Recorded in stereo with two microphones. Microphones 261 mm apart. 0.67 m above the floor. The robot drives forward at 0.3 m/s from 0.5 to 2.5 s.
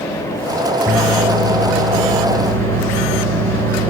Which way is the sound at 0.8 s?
50° right (ahead or behind).